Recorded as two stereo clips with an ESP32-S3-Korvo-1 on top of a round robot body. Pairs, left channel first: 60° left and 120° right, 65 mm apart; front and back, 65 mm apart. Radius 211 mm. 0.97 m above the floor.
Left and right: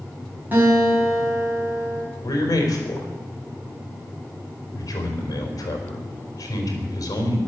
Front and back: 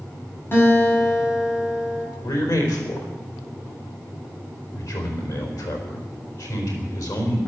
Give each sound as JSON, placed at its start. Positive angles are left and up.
{"t": 0.5, "sound": "a guitar", "azimuth_deg": -55, "distance_m": 7.5}
{"t": 2.2, "sound": "a man speaking", "azimuth_deg": 25, "distance_m": 4.0}